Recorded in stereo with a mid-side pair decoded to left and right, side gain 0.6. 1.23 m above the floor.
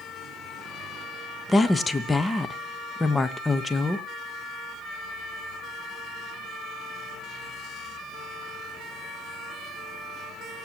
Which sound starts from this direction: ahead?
A woman speaking, at 1.5 s.